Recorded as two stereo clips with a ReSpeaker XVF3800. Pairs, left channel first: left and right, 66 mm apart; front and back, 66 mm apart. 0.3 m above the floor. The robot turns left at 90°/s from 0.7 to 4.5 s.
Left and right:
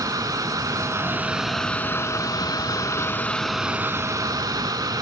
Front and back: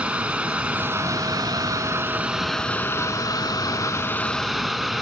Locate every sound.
0.0 s running water: 105° right, 0.9 m; by 5.0 s 90° right, 0.9 m